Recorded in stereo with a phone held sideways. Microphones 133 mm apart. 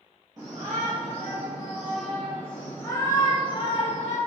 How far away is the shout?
About 2.5 m.